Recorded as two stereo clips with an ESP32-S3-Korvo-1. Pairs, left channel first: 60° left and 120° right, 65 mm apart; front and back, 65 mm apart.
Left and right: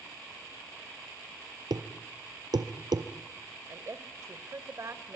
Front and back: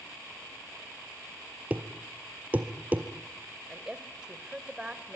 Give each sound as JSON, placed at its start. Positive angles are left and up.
{"t": 1.7, "sound": "a thud", "azimuth_deg": -110, "distance_m": 1.9}
{"t": 3.7, "sound": "a woman speaking", "azimuth_deg": -105, "distance_m": 1.9}